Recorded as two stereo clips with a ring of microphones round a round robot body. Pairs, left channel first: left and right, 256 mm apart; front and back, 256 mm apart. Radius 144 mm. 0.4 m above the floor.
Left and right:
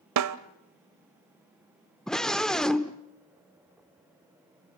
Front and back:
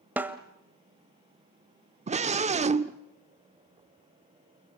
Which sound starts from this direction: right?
A snare drum, at 0.2 s.